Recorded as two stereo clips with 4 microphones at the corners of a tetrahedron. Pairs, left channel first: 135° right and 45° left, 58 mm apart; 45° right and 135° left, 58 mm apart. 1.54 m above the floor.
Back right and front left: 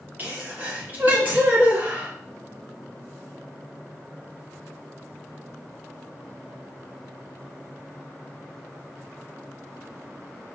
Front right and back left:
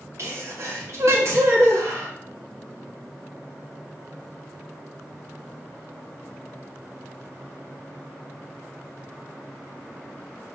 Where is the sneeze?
100° left, 3 m.